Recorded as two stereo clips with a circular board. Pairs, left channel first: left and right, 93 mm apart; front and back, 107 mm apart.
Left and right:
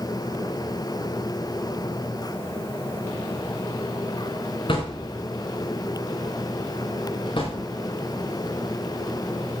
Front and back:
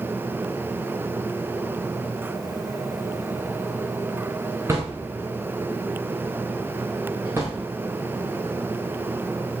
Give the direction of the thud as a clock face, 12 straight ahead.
8 o'clock.